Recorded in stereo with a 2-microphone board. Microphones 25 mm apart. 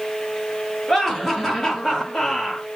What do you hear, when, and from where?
0.9 s laughter: 15° left (ahead or behind), 4 m; by 2.7 s 25° left (ahead or behind), 4.5 m